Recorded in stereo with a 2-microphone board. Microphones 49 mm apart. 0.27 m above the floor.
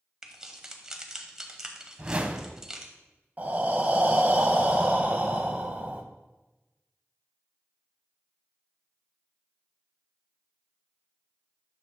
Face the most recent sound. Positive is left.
turn(degrees=-35)  # may be behind; listen again after turning